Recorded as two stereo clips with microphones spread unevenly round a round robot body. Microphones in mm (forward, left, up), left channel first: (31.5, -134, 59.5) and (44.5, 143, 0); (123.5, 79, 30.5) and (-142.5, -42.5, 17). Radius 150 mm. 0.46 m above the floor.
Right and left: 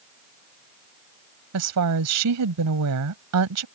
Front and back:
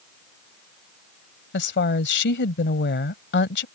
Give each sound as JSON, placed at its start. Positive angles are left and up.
{"t": 1.5, "sound": "a woman speaking", "azimuth_deg": 75}